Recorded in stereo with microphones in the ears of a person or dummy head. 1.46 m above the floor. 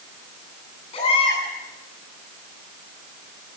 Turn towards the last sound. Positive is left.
turn(degrees=35)  # may be behind; listen again after turning